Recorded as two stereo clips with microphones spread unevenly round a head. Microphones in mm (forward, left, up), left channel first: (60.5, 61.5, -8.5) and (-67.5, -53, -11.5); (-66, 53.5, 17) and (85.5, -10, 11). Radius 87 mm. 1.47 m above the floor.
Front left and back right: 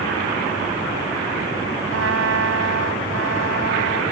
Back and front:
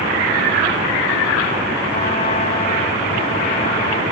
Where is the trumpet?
145° right.